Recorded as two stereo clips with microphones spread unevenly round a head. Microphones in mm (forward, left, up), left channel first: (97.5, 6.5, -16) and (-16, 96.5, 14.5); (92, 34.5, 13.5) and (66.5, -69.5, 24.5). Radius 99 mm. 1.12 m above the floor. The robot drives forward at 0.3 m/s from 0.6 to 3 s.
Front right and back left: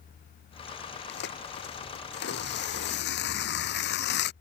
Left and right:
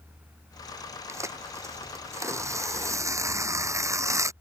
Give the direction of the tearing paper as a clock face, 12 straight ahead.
1 o'clock.